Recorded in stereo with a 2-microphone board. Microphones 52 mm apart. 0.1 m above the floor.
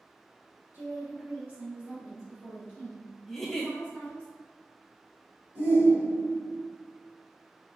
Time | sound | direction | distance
0.7 | a woman speaking | 40° right (ahead or behind) | 1.7 m
3.3 | a giggle | 5° left (ahead or behind) | 0.7 m
5.5 | a shout | 45° right (ahead or behind) | 1.8 m